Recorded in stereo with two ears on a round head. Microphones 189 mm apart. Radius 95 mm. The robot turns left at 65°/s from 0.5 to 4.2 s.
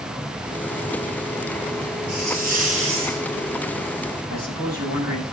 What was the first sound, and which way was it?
A hiss, 70° right.